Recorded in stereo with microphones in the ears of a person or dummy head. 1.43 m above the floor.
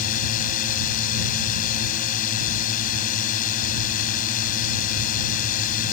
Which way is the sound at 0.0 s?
45° left (ahead or behind).